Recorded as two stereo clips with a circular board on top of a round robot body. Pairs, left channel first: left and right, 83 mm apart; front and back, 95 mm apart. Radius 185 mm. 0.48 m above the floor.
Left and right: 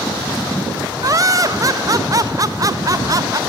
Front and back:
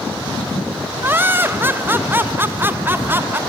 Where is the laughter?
120° right, 1.6 m.